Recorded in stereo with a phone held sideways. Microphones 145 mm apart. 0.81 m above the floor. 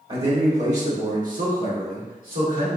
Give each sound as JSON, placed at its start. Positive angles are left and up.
{"t": 0.1, "sound": "a man speaking", "side_deg": -40, "distance_m": 1.4}